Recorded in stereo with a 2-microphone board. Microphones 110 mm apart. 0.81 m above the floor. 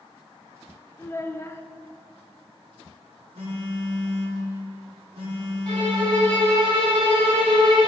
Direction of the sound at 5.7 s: 50° right (ahead or behind).